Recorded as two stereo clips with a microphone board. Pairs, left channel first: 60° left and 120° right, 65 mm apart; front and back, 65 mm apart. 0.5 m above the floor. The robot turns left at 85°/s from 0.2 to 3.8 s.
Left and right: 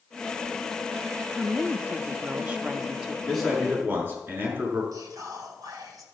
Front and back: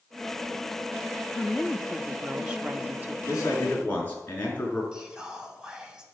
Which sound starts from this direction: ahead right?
A woman speaking, at 1.3 s.